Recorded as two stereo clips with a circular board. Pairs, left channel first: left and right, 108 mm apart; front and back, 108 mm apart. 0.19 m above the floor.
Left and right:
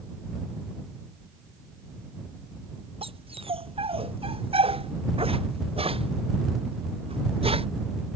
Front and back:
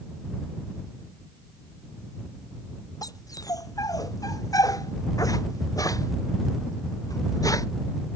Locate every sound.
3.0 s a dog barking: 55° right; by 7.7 s 60° right